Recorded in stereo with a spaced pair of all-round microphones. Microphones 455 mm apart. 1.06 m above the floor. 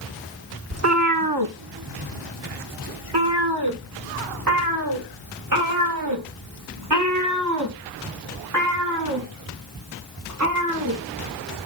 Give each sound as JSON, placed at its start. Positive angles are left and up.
{"t": 0.7, "sound": "a cat meowing", "side_deg": -30, "distance_m": 0.9}